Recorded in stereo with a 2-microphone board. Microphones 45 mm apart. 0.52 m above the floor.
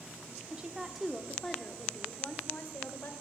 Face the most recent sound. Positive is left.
turn(degrees=50)  # may be behind; listen again after turning